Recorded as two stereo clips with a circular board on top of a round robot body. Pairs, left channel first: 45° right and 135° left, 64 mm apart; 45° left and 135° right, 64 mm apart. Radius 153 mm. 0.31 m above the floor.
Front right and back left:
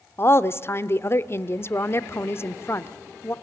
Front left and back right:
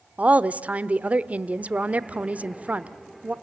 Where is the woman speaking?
75° right, 1.2 m.